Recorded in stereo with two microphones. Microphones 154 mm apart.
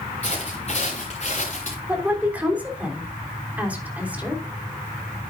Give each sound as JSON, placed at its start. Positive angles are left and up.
{"t": 0.2, "sound": "footsteps", "side_deg": 40, "distance_m": 4.5}
{"t": 1.9, "sound": "a woman speaking", "side_deg": -10, "distance_m": 3.5}